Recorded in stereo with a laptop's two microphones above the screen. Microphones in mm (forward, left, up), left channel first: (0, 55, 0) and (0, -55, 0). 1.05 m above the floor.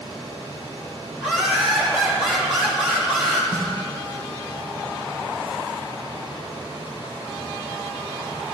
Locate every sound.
0.0 s a fan: 50° right (ahead or behind), 2.5 m
1.2 s laughter: 10° right (ahead or behind), 1.5 m
3.5 s a snare drum: 30° right (ahead or behind), 1.1 m